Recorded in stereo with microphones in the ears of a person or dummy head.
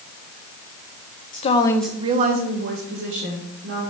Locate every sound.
1.3 s a woman speaking: 40° left (ahead or behind), 0.8 m; by 3.8 s 80° right, 2 m